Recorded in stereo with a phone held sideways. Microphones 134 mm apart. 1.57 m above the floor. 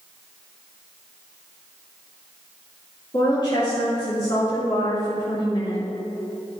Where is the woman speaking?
35° left (ahead or behind), 3 m.